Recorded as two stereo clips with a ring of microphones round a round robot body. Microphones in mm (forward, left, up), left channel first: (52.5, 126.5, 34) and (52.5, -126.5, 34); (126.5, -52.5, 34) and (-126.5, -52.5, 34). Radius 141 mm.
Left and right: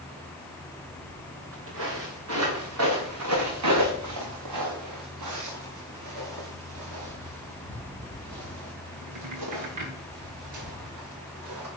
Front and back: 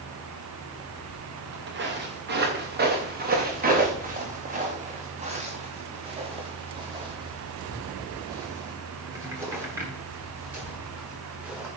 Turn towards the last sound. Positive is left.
turn(degrees=-95)